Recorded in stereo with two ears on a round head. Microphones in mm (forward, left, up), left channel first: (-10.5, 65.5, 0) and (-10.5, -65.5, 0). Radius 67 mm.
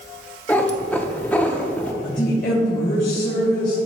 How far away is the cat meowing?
About 0.6 m.